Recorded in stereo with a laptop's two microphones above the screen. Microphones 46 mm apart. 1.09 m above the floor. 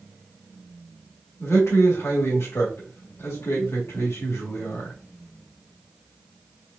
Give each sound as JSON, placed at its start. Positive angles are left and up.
{"t": 1.4, "sound": "a man speaking", "side_deg": 75, "distance_m": 1.7}